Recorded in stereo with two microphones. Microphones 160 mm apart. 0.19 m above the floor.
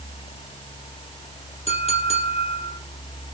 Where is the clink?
40° left (ahead or behind), 3.5 m.